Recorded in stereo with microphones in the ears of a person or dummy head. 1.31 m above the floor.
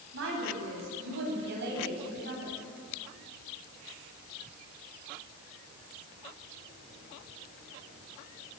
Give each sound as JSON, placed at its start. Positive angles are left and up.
{"t": 0.1, "sound": "a woman speaking", "side_deg": -75, "distance_m": 8.0}